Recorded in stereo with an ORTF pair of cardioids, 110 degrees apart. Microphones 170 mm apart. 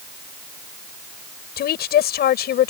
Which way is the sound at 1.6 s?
65° left.